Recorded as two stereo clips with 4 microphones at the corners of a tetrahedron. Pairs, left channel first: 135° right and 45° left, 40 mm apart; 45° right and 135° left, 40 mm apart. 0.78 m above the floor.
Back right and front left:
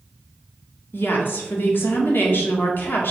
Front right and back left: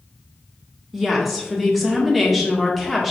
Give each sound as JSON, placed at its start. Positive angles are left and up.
{"t": 0.9, "sound": "a woman speaking", "azimuth_deg": -140, "distance_m": 1.8}